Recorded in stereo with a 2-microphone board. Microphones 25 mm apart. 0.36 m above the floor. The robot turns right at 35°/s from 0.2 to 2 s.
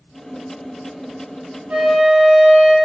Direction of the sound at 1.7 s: 70° right (ahead or behind).